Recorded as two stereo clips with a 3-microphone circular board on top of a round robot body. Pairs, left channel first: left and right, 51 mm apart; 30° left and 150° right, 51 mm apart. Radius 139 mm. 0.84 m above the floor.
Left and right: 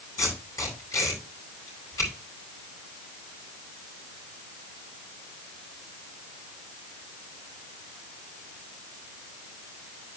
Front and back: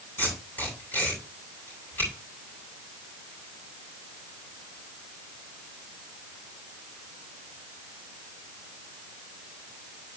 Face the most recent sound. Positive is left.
turn(degrees=80)